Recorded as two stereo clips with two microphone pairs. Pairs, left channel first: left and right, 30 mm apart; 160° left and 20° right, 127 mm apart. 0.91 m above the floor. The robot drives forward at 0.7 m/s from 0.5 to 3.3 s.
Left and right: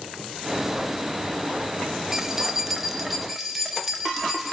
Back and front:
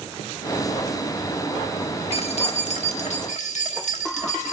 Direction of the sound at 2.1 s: 165° right.